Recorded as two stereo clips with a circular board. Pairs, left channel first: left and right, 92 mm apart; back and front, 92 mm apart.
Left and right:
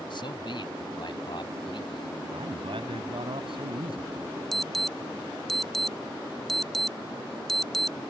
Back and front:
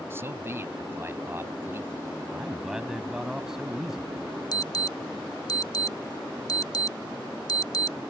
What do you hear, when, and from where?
0.1 s a man speaking: 60° left
2.3 s a man speaking: 85° right
4.5 s an alarm: 175° left